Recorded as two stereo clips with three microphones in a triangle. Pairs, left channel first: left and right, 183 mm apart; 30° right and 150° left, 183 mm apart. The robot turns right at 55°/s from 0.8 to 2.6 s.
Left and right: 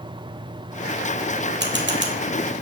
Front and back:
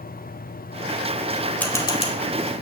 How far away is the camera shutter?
About 2.5 m.